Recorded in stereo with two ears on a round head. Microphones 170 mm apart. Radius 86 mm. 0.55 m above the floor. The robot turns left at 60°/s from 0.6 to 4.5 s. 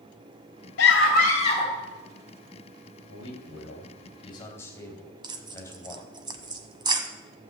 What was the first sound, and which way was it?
A scream, 75° left.